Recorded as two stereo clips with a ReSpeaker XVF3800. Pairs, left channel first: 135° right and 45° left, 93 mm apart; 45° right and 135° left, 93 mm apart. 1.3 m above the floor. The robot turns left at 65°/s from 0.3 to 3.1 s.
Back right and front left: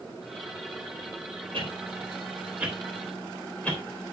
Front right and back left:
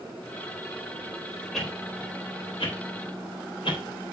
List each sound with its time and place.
1.5 s a whoosh: 40° left, 3.5 m; by 3.8 s 60° right, 3.5 m